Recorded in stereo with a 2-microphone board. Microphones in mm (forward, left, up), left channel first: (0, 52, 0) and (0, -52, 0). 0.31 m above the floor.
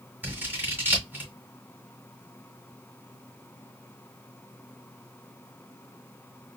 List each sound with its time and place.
0.2 s scissors: 20° right (ahead or behind), 2 m